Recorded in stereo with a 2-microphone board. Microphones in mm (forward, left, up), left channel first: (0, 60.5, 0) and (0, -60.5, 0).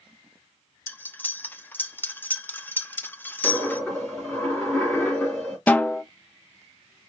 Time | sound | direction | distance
0.9 | cutlery clinking | 15° left (ahead or behind) | 0.5 m
3.4 | a dropped coin | 10° left (ahead or behind) | 2.5 m
5.7 | a snare drum | 15° left (ahead or behind) | 0.6 m